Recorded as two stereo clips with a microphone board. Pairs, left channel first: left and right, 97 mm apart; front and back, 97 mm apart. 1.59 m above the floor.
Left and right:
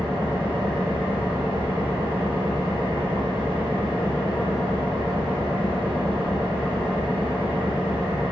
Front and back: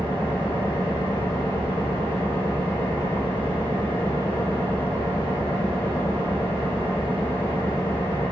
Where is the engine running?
60° left, 4 m.